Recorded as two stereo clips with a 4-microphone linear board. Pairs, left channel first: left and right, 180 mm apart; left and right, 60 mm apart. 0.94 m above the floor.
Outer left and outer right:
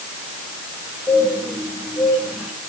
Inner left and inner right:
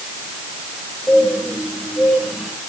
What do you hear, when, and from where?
1.1 s a bird: 5° right (ahead or behind), 4 m